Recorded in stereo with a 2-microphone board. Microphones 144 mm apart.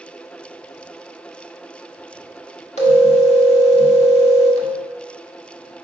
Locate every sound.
2.8 s a phone ringing: 50° left (ahead or behind), 1.2 m